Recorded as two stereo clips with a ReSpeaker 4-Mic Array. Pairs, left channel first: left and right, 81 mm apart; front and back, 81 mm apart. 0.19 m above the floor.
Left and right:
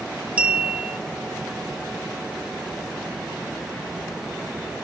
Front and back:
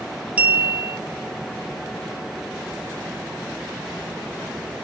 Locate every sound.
0.4 s a clink: 135° right, 0.6 m